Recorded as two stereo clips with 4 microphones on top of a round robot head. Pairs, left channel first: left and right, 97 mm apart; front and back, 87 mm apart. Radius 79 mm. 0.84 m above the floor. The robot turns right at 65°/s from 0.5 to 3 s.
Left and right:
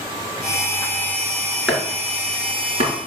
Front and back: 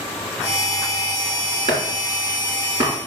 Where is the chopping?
175° left, 4 m; by 2.9 s 105° right, 4 m.